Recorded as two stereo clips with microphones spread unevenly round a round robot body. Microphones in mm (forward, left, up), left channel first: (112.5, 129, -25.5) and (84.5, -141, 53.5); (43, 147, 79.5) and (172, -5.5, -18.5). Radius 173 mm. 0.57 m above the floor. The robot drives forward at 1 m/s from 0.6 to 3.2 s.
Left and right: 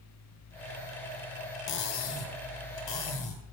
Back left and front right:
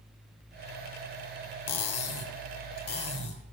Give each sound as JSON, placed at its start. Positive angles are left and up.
{"t": 1.7, "sound": "cutlery clinking", "azimuth_deg": 130, "distance_m": 0.7}